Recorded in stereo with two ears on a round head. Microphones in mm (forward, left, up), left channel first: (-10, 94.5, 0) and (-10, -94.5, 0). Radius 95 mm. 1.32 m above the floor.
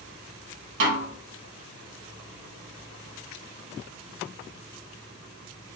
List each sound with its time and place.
0.8 s a snare drum: 65° right (ahead or behind), 1.5 m